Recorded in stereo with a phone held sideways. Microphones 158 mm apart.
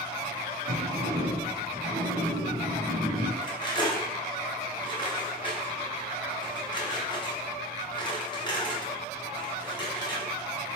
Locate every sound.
0.7 s a sliding door: 70° right (ahead or behind), 2 m
3.4 s cutlery clinking: 25° left (ahead or behind), 0.7 m